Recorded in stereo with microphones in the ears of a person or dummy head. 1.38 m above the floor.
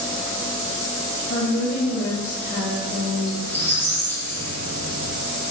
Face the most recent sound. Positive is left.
turn(degrees=15)  # may be behind; listen again after turning